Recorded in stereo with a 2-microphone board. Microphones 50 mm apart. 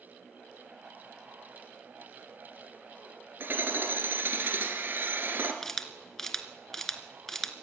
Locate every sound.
3.4 s hammering: 50° right (ahead or behind), 2.5 m
5.6 s a camera shutter: 10° left (ahead or behind), 1.7 m